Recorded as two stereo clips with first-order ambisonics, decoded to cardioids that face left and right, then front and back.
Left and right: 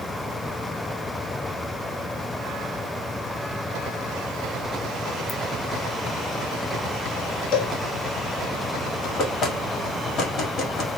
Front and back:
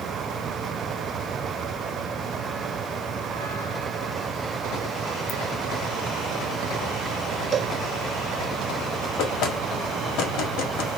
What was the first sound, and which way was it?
A ringtone, 30° left.